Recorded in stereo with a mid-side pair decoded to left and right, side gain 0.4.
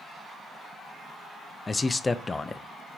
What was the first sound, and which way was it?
A man speaking, 30° left.